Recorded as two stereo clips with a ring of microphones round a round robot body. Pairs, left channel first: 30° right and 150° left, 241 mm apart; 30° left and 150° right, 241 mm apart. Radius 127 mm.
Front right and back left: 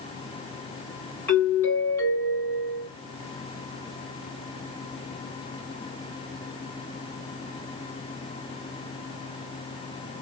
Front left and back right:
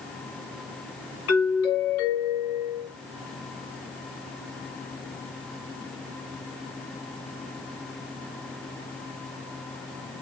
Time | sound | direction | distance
1.3 | a doorbell | 50° left | 2.5 m